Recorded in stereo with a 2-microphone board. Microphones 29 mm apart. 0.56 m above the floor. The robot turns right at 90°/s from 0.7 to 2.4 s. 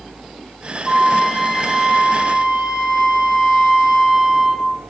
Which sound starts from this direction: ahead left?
A flute, at 0.8 s.